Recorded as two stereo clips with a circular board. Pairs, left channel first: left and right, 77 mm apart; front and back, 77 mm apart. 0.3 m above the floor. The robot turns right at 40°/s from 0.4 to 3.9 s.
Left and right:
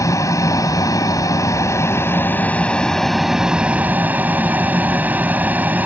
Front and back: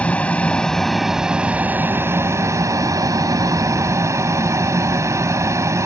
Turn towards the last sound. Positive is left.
turn(degrees=-150)